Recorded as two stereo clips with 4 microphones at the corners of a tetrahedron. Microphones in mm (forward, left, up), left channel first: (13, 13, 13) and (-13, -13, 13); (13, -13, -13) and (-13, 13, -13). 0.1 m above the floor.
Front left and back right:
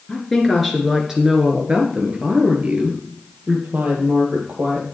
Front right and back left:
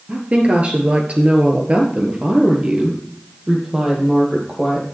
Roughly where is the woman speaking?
Behind left.